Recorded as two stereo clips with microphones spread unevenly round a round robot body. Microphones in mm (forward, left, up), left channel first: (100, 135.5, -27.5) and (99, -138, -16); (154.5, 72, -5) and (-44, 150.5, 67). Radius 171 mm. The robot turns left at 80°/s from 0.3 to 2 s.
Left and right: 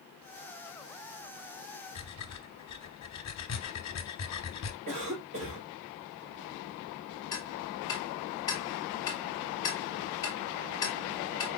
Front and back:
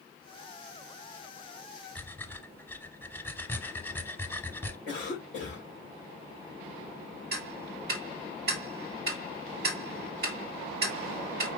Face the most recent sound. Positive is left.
turn(degrees=145)